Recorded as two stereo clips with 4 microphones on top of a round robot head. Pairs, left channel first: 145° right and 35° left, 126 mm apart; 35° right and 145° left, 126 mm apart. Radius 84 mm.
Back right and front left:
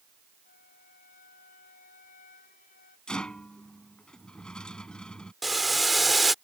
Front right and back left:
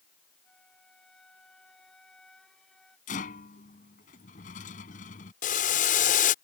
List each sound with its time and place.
0.4 s a flute: 120° right
3.1 s a rattle: 60° right
5.4 s boiling: 55° right